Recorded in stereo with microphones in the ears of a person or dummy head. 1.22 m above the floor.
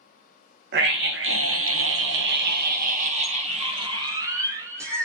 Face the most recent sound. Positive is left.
turn(degrees=-15)  # may be behind; listen again after turning